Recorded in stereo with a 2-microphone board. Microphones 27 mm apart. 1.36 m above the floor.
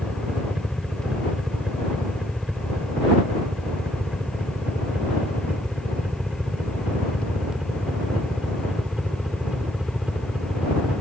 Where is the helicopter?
40° right (ahead or behind); by 11.0 s 35° right (ahead or behind).